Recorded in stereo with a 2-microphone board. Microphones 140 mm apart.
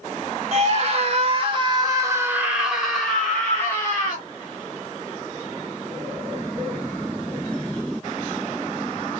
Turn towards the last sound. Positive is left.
turn(degrees=20)  # may be behind; listen again after turning